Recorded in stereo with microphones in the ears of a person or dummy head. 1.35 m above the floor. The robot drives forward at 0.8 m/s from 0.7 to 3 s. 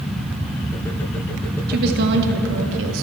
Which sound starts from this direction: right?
A woman speaking, at 1.7 s.